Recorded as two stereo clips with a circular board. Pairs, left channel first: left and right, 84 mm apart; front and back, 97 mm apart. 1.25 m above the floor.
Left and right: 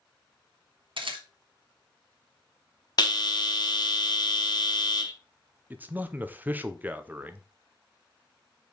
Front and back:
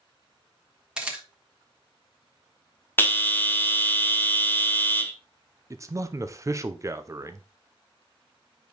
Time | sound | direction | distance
1.0 | a camera shutter | 100° right | 1.3 m
3.0 | a bell | 65° left | 0.8 m
5.7 | a man speaking | 145° right | 0.6 m